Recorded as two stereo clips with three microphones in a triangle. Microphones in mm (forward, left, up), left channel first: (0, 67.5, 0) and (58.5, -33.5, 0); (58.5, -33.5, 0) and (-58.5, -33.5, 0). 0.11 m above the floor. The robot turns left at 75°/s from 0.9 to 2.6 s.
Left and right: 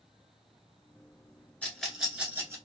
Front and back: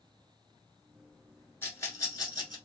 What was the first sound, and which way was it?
A rattle, 55° left.